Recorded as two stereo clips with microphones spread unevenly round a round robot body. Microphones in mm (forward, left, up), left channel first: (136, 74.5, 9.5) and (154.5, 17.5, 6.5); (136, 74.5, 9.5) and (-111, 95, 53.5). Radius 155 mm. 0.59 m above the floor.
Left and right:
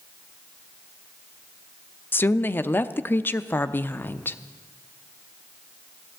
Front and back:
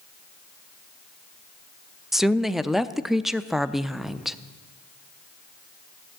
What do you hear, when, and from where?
2.1 s a woman speaking: 75° left, 0.6 m